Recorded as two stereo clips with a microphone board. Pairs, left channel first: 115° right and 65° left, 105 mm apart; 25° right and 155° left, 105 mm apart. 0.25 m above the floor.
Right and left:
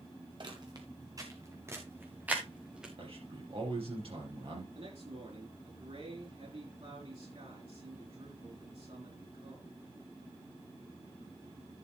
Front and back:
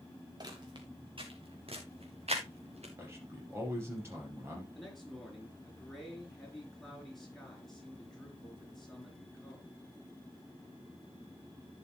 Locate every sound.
0.4 s footsteps: 110° left, 2.5 m; by 2.9 s 150° left, 3 m
3.0 s a man speaking: 90° left, 5.5 m
4.8 s a man speaking: 65° left, 4.5 m